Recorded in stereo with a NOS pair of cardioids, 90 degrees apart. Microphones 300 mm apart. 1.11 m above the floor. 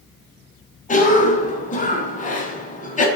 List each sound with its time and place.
0.9 s a cough: 25° left, 0.6 m